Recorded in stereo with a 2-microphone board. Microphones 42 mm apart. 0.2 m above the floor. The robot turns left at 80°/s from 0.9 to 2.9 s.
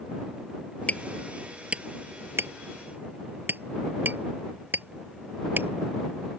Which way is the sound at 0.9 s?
35° left (ahead or behind).